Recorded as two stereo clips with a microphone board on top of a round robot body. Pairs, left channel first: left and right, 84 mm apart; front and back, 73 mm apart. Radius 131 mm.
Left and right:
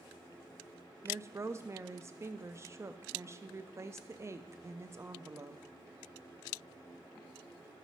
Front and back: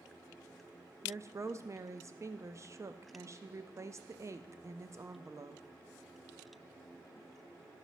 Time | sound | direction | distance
1.0 | a woman speaking | 140° right | 0.7 m